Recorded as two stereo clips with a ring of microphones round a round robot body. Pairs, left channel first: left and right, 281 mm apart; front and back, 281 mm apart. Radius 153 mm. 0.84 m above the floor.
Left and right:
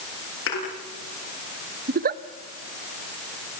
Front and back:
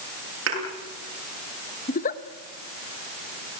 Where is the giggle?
50° right, 0.9 m.